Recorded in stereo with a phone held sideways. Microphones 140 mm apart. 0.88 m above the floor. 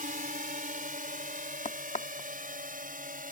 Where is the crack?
55° left (ahead or behind).